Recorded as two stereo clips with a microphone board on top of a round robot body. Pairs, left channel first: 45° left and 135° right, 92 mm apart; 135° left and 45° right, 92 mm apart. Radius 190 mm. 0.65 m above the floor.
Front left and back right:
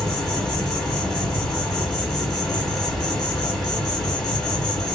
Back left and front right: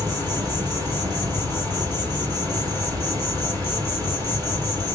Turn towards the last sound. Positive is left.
turn(degrees=-40)